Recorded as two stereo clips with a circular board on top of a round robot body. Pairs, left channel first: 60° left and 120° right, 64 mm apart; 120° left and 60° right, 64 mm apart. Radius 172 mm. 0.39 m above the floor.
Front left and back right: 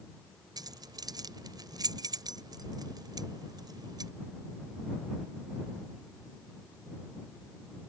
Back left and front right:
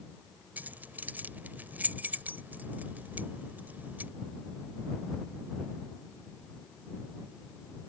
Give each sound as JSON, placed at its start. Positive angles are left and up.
{"t": 0.6, "sound": "keys jangling", "azimuth_deg": -125}